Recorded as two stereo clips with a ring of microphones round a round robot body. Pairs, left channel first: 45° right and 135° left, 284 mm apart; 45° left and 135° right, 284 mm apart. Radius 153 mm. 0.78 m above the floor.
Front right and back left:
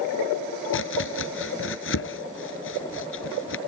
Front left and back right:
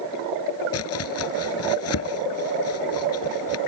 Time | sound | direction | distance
0.7 | chopping | 5° left | ?